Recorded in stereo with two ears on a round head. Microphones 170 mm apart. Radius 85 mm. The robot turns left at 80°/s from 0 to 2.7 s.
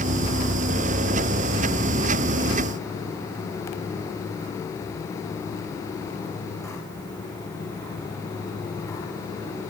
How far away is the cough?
No cough in this recording.